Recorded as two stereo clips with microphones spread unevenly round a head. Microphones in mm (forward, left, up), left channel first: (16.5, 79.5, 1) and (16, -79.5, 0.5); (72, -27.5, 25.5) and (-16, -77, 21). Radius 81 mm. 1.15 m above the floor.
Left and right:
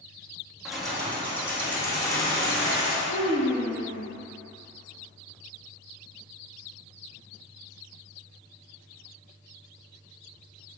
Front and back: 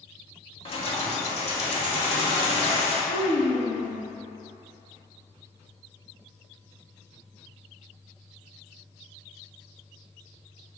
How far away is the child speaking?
About 0.9 m.